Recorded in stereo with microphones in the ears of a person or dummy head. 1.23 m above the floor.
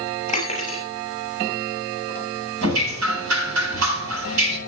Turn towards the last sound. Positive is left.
turn(degrees=-80)